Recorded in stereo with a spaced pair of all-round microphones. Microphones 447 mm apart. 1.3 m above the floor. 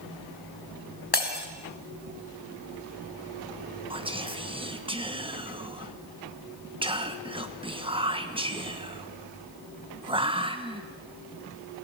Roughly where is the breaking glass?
Left.